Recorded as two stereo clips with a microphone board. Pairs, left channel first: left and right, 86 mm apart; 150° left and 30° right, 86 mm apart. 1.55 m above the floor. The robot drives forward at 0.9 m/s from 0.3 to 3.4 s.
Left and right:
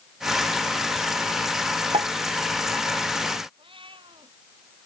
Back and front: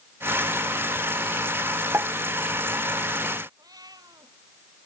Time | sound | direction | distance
1.9 | a pop | 90° right | ?
3.6 | a cat meowing | 75° right | ?